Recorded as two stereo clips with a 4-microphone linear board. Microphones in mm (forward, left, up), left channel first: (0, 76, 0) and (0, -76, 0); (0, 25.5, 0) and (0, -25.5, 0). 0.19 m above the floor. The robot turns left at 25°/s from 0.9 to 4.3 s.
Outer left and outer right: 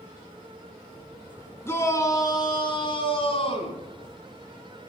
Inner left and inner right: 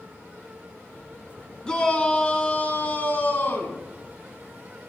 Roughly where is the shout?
Behind left.